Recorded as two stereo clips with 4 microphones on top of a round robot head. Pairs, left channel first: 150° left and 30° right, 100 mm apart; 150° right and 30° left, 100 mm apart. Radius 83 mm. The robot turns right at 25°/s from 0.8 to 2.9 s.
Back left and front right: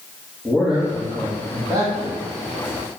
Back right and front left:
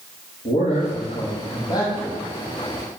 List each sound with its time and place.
0.5 s a man speaking: 120° right, 3 m; by 2.2 s 85° right, 3 m